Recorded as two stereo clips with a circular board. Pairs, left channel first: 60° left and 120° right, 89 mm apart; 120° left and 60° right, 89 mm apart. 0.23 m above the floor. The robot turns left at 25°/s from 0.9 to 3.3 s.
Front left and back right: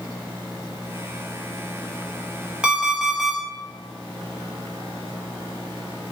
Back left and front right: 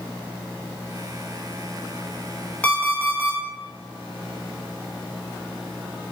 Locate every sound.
2.6 s an alarm clock: 175° left, 0.5 m; by 3.4 s 155° left, 0.5 m